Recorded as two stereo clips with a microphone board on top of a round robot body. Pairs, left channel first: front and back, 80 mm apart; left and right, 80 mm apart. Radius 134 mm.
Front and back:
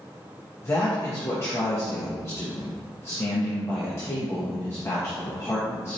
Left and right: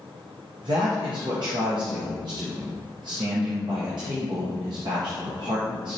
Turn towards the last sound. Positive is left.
turn(degrees=-60)